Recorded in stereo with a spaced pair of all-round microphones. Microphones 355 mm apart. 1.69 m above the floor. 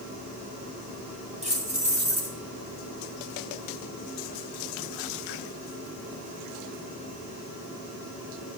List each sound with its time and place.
1.4 s keys jangling: 20° right (ahead or behind), 2.0 m